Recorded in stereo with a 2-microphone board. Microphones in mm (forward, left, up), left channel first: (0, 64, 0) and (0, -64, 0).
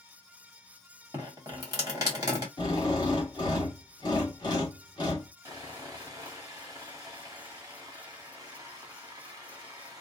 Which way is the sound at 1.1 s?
30° right (ahead or behind).